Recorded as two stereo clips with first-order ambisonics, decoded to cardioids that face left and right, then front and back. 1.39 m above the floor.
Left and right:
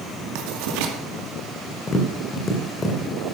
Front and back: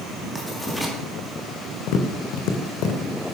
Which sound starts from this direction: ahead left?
Tapping, at 1.9 s.